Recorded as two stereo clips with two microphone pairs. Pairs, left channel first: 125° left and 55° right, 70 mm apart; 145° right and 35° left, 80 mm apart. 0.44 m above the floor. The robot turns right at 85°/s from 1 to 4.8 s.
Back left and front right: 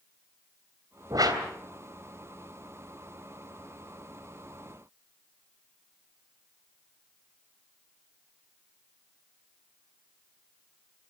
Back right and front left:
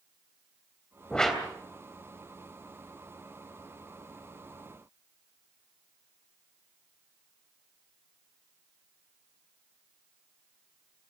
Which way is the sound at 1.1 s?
75° right.